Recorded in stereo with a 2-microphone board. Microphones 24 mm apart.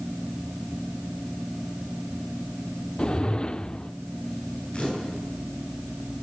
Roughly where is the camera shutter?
Left.